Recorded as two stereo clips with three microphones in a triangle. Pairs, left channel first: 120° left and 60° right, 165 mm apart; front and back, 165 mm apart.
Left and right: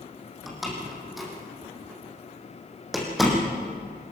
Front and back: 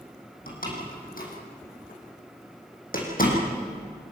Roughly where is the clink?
I don't hear a clink.